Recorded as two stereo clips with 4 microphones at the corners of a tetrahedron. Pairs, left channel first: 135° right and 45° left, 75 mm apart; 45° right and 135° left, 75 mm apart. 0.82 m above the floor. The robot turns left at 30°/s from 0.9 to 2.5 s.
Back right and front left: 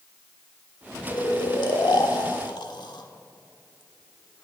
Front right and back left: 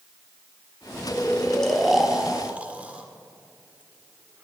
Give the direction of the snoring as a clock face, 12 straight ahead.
4 o'clock.